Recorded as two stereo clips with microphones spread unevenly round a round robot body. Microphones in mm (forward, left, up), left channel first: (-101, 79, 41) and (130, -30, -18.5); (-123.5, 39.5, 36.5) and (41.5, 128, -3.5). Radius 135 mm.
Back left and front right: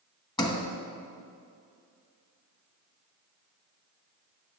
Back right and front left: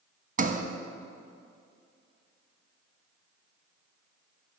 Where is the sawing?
No sawing in this recording.